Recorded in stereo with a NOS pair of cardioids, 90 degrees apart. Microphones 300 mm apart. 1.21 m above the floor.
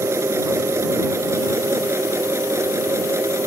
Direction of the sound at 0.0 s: 10° right.